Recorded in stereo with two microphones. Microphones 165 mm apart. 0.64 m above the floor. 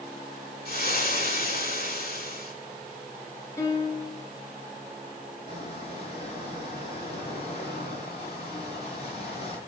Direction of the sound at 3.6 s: 20° left (ahead or behind).